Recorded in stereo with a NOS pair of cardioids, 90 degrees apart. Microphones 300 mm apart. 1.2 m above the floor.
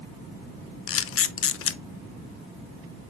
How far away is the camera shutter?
About 0.8 m.